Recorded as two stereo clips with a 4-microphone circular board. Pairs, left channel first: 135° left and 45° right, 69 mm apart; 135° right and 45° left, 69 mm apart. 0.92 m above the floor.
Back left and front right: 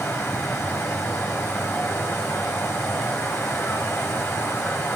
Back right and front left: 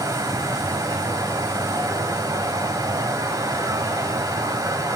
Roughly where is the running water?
Left.